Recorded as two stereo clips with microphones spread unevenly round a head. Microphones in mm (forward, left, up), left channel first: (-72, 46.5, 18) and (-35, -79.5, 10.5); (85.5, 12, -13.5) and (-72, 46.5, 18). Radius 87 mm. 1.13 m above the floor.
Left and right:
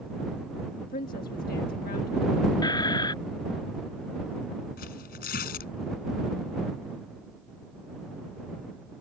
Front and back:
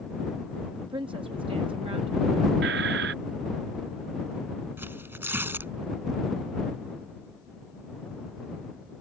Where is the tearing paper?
95° left.